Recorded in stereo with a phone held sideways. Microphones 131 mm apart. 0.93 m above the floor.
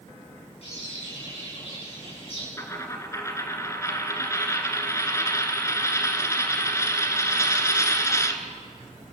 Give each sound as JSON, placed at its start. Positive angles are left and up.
{"t": 0.6, "sound": "a bird", "side_deg": 50, "distance_m": 9.0}
{"t": 2.6, "sound": "a dropped coin", "side_deg": 20, "distance_m": 1.8}